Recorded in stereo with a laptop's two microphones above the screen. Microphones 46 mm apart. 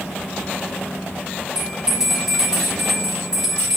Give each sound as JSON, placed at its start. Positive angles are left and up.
{"t": 1.6, "sound": "a bell", "side_deg": -15, "distance_m": 2.5}